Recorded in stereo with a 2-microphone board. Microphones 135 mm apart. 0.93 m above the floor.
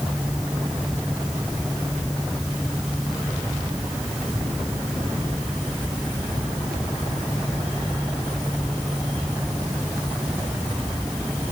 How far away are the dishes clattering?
I don't hear dishes clattering.